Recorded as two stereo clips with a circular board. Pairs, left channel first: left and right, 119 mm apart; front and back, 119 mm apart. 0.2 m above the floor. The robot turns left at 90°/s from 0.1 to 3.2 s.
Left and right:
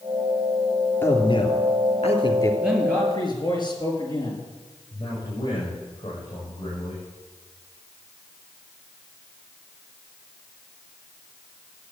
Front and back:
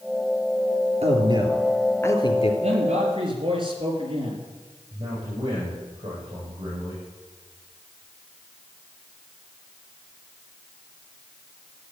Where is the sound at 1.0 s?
160° left, 3 m; by 2.5 s 25° left, 3 m.